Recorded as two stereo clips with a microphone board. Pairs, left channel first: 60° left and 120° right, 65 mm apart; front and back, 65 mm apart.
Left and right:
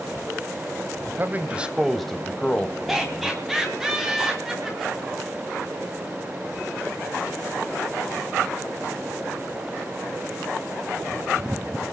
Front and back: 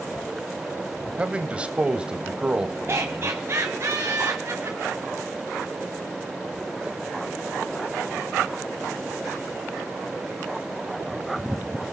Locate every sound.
1.2 s a man speaking: 125° right, 1.3 m; by 3.9 s 95° left, 2 m
2.9 s laughter: 155° left, 2 m